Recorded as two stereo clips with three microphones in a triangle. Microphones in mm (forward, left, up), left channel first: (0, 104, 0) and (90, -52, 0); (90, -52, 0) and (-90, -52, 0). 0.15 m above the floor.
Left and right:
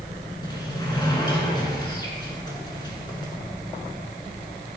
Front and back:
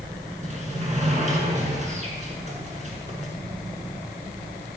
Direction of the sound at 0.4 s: 170° left.